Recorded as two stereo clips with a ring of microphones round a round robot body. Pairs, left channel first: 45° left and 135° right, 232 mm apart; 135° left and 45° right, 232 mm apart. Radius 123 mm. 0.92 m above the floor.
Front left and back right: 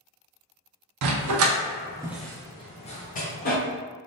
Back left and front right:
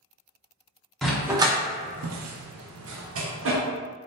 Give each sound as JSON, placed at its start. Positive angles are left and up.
{"t": 1.0, "sound": "a dog barking", "azimuth_deg": -135, "distance_m": 0.7}